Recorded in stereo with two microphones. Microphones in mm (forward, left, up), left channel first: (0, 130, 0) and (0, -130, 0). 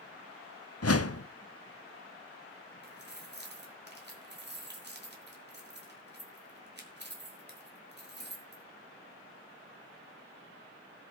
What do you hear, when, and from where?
0.8 s a whoosh: 65° left (ahead or behind), 0.5 m
2.8 s keys jangling: 40° right (ahead or behind), 2.5 m